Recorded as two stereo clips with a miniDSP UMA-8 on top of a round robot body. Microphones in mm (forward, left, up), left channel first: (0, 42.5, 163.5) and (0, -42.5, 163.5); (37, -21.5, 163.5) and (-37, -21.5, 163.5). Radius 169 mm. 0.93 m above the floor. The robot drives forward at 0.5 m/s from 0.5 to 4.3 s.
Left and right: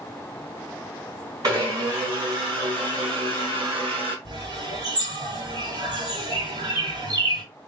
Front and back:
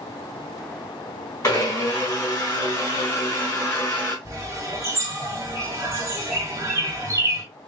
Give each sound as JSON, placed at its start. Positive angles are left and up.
{"t": 1.4, "sound": "a blender", "azimuth_deg": -40, "distance_m": 3.5}
{"t": 4.2, "sound": "a bird", "azimuth_deg": -130, "distance_m": 1.8}